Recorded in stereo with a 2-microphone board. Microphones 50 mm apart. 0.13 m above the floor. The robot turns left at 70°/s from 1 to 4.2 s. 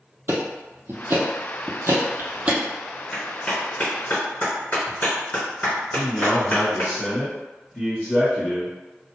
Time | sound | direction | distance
0.3 | ticking | 50° right (ahead or behind) | 0.6 m
3.1 | a clap | 10° left (ahead or behind) | 1.6 m
5.9 | a man speaking | 15° left (ahead or behind) | 1.6 m